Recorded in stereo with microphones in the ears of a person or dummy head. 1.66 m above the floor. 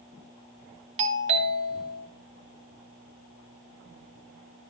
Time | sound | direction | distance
1.0 | a doorbell | 35° right (ahead or behind) | 2.0 m